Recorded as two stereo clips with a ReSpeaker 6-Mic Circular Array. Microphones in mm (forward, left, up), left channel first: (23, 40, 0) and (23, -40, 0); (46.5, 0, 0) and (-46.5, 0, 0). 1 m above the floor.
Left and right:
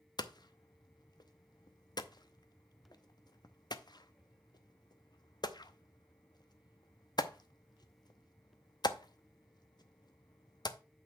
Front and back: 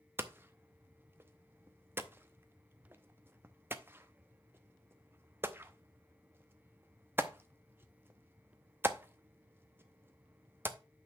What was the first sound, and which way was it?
Hammering, 115° left.